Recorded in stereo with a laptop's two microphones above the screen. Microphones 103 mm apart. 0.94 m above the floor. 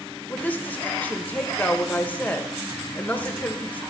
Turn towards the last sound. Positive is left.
turn(degrees=15)  # may be behind; listen again after turning